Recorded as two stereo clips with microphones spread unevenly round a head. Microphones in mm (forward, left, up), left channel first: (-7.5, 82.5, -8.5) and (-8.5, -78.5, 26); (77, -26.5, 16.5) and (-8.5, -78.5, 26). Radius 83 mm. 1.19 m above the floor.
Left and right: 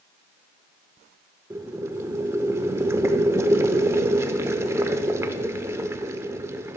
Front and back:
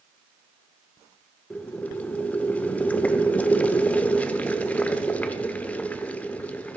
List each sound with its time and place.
1.5 s boiling: 40° right, 0.9 m